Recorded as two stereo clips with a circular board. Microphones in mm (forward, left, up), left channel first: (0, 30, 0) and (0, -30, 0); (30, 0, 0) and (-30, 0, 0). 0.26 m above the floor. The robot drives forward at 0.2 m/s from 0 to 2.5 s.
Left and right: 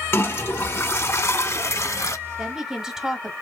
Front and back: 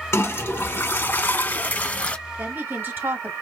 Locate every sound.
0.1 s a toilet flushing: 45° left, 1.0 m; by 2.2 s 65° left, 0.7 m
2.4 s a woman speaking: 165° right, 1.3 m